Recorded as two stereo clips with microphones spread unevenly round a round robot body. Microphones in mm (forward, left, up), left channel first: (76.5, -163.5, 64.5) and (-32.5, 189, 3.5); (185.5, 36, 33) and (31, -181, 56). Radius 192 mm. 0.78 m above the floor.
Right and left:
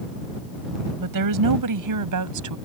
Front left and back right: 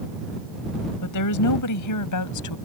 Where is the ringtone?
I don't hear a ringtone.